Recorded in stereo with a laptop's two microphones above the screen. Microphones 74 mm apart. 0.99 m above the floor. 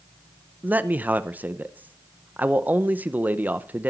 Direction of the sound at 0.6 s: 20° right (ahead or behind).